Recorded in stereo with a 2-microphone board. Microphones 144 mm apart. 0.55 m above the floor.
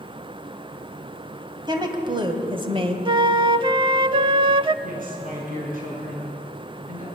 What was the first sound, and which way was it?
A woman speaking, 30° right (ahead or behind).